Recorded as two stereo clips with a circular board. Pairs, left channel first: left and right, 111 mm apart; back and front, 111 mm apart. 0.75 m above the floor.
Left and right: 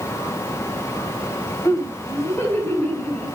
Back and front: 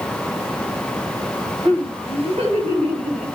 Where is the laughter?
25° left, 4.5 m; by 3.2 s 10° left, 6 m.